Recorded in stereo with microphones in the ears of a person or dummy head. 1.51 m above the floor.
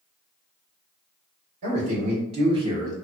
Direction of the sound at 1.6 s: 45° right (ahead or behind).